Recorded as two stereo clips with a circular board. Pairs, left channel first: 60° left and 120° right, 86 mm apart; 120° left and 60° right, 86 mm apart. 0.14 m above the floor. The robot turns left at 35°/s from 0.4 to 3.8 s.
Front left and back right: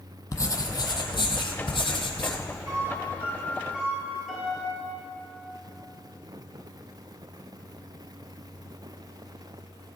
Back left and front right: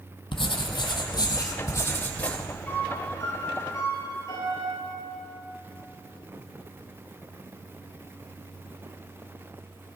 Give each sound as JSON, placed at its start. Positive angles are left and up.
{"t": 0.3, "sound": "writing", "azimuth_deg": 110, "distance_m": 1.3}
{"t": 2.7, "sound": "a piano", "azimuth_deg": -165, "distance_m": 3.5}